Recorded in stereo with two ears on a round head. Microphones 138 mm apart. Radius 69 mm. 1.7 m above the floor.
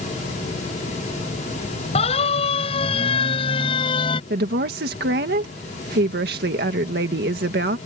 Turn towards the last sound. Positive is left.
turn(degrees=-75)  # may be behind; listen again after turning